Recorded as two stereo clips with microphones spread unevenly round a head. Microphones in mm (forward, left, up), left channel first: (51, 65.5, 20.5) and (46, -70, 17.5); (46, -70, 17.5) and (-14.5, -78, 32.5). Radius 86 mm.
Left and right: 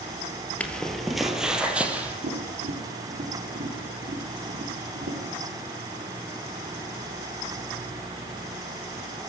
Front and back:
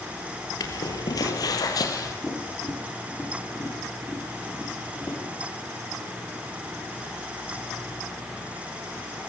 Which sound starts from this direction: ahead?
Footsteps, at 0.6 s.